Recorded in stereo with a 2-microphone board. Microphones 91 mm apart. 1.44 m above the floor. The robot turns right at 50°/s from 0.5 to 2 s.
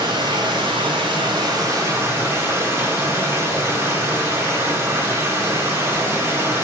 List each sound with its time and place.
0.0 s running water: 105° right, 1.8 m; by 6.6 s 30° right, 1.8 m